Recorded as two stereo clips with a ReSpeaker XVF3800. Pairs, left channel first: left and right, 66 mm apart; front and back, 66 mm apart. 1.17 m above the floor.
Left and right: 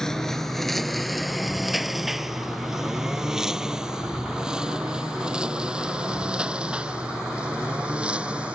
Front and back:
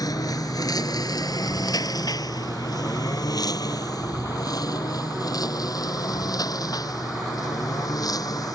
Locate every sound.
0.0 s a lawn mower: 10° left; by 8.6 s 20° right